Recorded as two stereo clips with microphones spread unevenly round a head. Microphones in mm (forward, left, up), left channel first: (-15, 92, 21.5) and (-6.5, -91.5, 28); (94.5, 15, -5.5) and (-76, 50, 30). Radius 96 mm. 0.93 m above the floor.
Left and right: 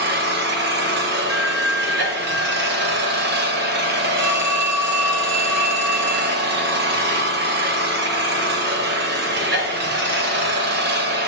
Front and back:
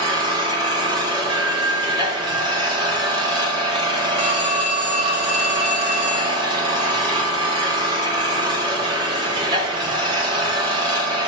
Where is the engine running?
125° right, 1.0 m.